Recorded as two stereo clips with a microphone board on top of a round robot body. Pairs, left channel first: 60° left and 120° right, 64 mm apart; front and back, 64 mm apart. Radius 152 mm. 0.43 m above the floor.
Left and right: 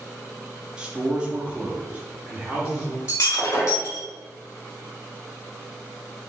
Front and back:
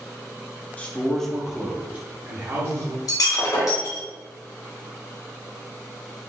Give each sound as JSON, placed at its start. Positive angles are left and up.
{"t": 0.8, "sound": "a man speaking", "azimuth_deg": -55, "distance_m": 0.9}
{"t": 3.1, "sound": "breaking glass", "azimuth_deg": 15, "distance_m": 1.5}